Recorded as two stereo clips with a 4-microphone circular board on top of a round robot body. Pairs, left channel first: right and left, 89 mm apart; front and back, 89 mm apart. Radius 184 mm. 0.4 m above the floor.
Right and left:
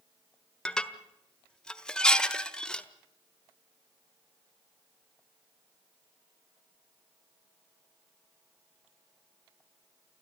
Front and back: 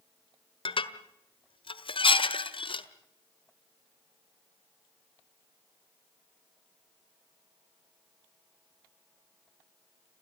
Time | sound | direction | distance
0.7 | dishes clattering | 10° right | 1.6 m